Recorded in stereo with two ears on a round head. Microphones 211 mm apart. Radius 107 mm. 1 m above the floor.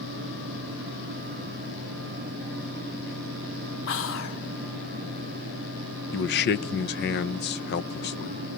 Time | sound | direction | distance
3.9 | whispering | 55° left (ahead or behind) | 3 m
6.1 | a man speaking | 45° left (ahead or behind) | 0.9 m